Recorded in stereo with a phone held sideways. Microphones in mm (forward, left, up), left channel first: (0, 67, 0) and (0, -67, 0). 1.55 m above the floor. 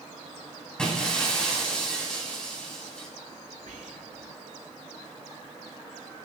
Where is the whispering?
85° right, 2.5 m.